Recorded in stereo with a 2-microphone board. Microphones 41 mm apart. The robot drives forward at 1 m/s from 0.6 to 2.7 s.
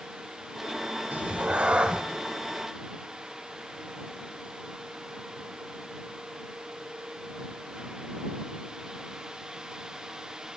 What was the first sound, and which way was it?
A cat meowing, 40° right (ahead or behind).